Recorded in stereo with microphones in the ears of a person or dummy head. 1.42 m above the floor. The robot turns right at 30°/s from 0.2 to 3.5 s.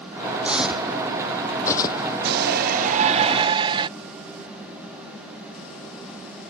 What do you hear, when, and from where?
0.4 s footsteps: 5° right (ahead or behind); by 2.1 s 30° left (ahead or behind)
2.2 s a shout: 65° right; by 3.9 s 30° right